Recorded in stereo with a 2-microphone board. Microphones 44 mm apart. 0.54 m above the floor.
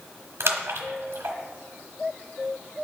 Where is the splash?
80° right, 1.1 m.